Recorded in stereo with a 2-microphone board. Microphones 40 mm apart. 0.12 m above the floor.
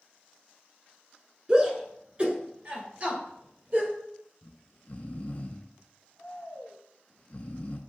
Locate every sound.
1.5 s a shout: 20° right (ahead or behind), 1.2 m; by 3.9 s 35° right (ahead or behind), 2 m
4.4 s snoring: 35° left (ahead or behind), 0.5 m